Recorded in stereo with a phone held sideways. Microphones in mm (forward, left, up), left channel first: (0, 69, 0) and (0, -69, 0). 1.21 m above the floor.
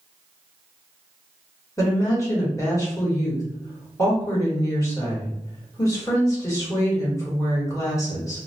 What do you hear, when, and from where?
1.8 s a woman speaking: 20° left (ahead or behind), 1.4 m